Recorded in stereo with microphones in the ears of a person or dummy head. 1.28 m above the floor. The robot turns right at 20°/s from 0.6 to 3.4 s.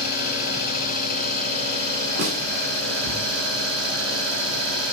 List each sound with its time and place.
0.0 s an engine running: 160° right, 7.5 m; by 4.9 s 105° right, 7.5 m
2.2 s a snare drum: 75° right (ahead or behind), 3.5 m; by 2.4 s 80° right, 3.5 m